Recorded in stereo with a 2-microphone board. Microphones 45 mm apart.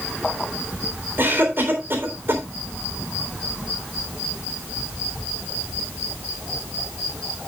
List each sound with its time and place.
1.2 s a cough: 55° right (ahead or behind), 3.5 m